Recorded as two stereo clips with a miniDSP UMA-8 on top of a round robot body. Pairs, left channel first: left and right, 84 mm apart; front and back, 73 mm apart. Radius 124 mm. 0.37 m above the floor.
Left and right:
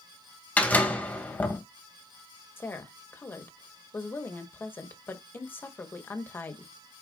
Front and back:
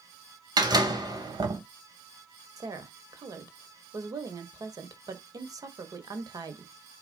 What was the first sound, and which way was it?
A door slam, 160° left.